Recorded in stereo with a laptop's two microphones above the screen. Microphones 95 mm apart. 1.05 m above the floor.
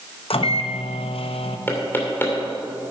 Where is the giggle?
I don't hear a giggle.